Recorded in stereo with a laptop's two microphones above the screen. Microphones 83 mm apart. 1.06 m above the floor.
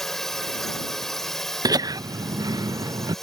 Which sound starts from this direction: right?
Laughter, at 1.6 s.